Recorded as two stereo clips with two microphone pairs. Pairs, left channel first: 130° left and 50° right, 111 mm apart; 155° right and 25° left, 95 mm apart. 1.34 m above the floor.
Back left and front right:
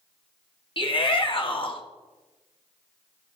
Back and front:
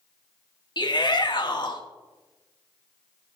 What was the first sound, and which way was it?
A shout, 170° left.